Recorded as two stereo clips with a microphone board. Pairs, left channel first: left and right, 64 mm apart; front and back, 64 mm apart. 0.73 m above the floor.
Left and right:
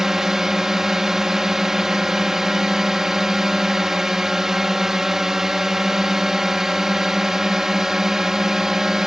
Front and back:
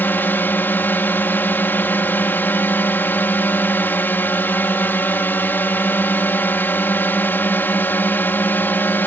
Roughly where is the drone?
Ahead.